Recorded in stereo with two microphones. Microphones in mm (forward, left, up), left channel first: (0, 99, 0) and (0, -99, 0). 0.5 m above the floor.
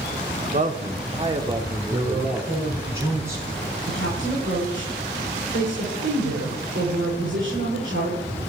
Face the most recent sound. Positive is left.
turn(degrees=-75)  # may be behind; listen again after turning